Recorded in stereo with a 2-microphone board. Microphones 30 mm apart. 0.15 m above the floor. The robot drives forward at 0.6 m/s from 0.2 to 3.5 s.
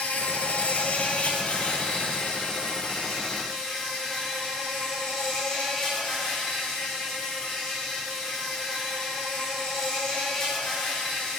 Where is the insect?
70° left (ahead or behind), 0.8 m; by 11.4 s 20° left (ahead or behind), 2 m.